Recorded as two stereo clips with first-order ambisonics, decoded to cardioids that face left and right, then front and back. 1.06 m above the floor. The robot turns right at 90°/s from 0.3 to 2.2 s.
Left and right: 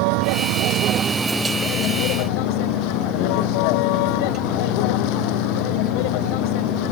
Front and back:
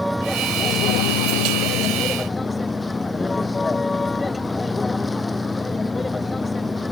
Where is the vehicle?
90° right; by 6.9 s 80° left.